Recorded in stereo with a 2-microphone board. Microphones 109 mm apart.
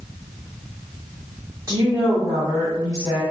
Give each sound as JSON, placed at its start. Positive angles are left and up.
{"t": 1.7, "sound": "a woman speaking", "side_deg": -30, "distance_m": 1.8}